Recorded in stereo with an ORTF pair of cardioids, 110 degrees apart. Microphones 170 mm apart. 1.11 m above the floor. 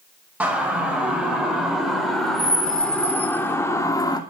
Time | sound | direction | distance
0.4 | a siren | 10° right | 6 m